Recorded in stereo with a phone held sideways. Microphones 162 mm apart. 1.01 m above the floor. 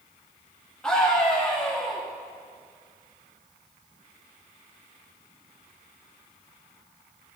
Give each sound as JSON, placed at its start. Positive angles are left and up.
{"t": 0.8, "sound": "a scream", "side_deg": 5, "distance_m": 2.5}